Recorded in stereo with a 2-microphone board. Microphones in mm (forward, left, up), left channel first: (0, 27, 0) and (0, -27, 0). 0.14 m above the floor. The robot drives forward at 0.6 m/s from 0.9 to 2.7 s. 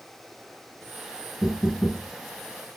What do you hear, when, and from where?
1.4 s knocking: 40° left (ahead or behind), 1.1 m